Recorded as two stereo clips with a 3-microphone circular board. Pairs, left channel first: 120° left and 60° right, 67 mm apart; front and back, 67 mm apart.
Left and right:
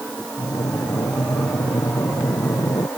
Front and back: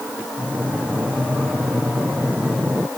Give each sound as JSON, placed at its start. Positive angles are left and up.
{"t": 0.4, "sound": "breathing", "azimuth_deg": 110}